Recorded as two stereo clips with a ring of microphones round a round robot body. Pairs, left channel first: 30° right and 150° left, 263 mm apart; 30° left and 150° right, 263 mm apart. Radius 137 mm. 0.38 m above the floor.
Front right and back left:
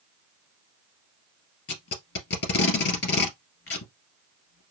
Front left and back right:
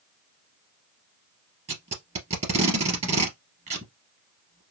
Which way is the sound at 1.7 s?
85° right.